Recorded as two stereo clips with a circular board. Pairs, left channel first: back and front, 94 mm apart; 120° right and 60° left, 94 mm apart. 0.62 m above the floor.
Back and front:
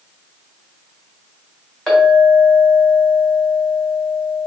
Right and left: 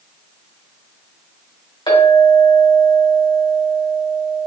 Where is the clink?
95° right, 2 m.